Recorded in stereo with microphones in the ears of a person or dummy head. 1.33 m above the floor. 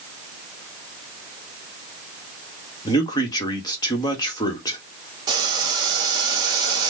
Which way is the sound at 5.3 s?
20° right (ahead or behind).